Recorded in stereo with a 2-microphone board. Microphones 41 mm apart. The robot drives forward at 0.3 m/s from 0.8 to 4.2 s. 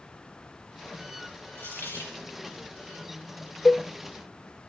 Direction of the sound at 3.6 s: 45° left (ahead or behind).